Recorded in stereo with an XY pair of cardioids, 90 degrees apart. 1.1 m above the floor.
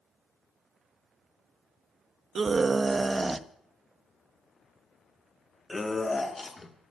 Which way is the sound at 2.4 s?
45° right.